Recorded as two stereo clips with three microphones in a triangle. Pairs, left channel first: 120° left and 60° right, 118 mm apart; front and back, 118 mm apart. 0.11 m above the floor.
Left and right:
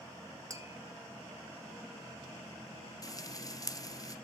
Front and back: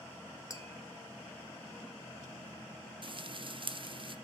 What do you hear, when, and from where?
0.5 s tapping: 30° right, 1.0 m
3.0 s frying: 165° left, 0.5 m